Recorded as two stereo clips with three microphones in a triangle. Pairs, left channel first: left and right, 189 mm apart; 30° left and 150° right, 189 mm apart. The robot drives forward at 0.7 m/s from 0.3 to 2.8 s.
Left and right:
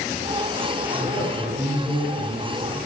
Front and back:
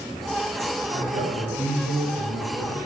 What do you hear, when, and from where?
0.9 s a man speaking: 155° right, 4.5 m; by 2.9 s 160° right, 6 m